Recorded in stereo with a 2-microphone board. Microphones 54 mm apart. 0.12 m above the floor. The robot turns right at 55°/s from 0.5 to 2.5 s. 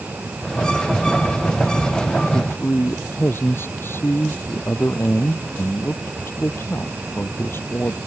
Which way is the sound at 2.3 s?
55° left (ahead or behind).